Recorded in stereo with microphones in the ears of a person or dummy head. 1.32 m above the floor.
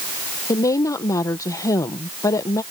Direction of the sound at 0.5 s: 15° left (ahead or behind).